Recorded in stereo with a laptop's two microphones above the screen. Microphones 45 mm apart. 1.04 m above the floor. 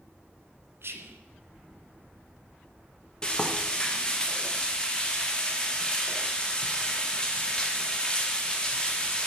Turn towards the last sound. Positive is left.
turn(degrees=15)  # may be behind; listen again after turning